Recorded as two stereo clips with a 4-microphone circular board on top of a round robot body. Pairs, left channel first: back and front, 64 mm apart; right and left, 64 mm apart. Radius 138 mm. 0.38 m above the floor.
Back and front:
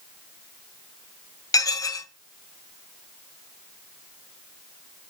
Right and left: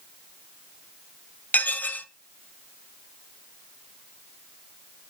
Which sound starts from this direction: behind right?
Dishes clattering, at 1.5 s.